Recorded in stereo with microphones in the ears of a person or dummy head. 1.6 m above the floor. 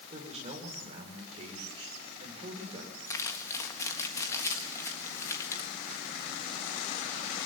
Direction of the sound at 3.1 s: 15° left (ahead or behind).